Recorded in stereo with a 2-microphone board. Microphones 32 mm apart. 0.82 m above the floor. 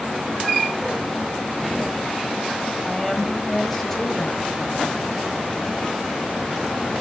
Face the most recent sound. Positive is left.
turn(degrees=10)  # may be behind; listen again after turning